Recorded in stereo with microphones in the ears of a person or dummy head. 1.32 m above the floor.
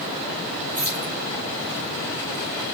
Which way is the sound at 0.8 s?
35° right (ahead or behind).